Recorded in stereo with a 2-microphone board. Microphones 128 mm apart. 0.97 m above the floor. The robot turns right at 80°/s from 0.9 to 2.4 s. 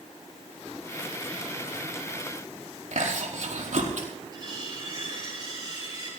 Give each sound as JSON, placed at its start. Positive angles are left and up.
{"t": 2.9, "sound": "chewing", "side_deg": -75, "distance_m": 4.5}
{"t": 4.3, "sound": "cutlery clinking", "side_deg": -35, "distance_m": 10.0}